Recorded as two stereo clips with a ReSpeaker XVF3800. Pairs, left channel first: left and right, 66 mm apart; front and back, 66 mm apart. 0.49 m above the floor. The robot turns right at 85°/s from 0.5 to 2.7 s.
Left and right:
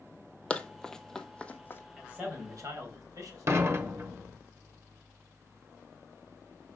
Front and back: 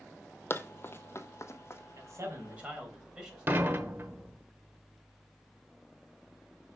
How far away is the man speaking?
About 3 m.